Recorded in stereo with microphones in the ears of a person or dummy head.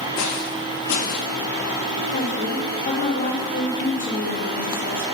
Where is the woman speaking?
40° left (ahead or behind), 1.7 m.